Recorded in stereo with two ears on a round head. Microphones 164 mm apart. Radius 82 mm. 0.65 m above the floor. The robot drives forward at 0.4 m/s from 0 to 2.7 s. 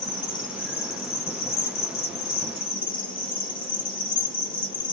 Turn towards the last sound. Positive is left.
turn(degrees=50)  # may be behind; listen again after turning